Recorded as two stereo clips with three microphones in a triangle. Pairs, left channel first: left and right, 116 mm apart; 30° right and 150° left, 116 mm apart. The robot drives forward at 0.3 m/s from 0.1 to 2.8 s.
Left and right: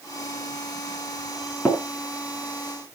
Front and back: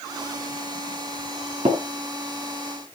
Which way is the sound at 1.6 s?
165° left.